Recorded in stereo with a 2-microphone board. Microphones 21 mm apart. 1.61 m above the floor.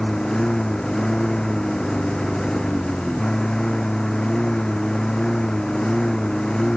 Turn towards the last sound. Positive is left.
turn(degrees=35)  # may be behind; listen again after turning